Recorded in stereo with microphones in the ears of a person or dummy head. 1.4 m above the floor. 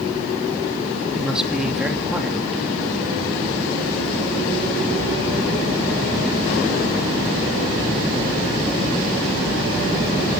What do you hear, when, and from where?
1.1 s a man speaking: 5° right (ahead or behind), 3 m